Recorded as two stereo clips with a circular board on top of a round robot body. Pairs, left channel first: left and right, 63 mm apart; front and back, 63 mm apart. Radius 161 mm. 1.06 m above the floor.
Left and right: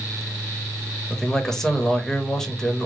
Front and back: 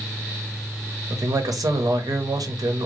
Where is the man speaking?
170° left, 1.3 m.